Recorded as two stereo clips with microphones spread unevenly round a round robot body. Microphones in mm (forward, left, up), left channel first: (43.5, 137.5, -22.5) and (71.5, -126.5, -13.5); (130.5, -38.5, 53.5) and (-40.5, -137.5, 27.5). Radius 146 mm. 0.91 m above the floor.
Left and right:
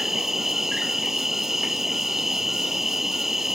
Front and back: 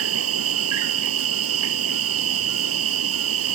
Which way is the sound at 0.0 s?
170° right.